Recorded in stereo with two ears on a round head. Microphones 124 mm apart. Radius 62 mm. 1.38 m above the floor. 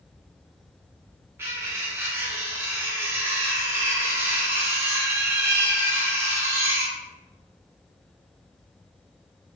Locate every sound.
1.4 s cutlery clinking: 20° right (ahead or behind), 0.5 m